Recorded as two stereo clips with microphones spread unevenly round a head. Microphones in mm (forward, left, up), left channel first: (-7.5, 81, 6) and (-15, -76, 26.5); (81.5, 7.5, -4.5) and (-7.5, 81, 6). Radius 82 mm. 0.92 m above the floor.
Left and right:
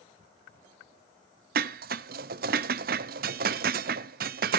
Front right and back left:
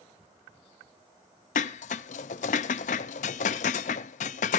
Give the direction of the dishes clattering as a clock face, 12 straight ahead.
2 o'clock.